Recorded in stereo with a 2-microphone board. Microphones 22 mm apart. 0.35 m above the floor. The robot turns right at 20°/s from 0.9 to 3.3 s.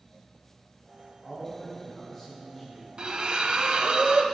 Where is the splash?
40° right (ahead or behind), 0.7 m; by 4.2 s 50° right (ahead or behind), 0.7 m.